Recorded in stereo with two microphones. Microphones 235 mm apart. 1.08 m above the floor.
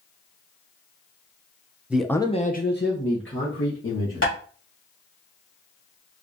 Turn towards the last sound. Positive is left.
turn(degrees=75)  # may be behind; listen again after turning